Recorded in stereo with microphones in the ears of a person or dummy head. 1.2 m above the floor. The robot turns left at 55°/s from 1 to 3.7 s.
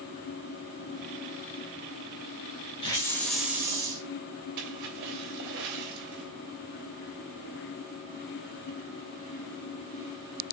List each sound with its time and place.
2.8 s a hiss: 30° left, 1.9 m; by 4.0 s 20° right, 1.9 m
4.6 s a splash: 60° right (ahead or behind), 3 m